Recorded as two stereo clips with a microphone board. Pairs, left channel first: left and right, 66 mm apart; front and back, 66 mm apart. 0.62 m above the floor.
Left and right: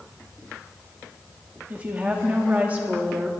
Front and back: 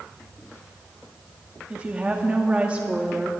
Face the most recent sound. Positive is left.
turn(degrees=-130)